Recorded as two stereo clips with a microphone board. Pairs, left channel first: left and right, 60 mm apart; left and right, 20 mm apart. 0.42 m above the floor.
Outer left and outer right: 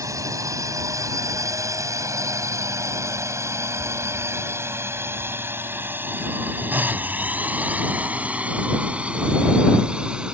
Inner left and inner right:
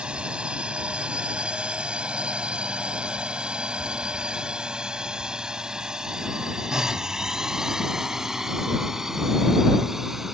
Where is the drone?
60° right (ahead or behind); by 10.3 s 15° right (ahead or behind).